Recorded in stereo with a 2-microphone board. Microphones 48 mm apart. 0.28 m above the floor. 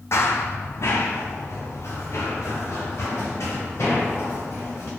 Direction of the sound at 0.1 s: 65° left (ahead or behind).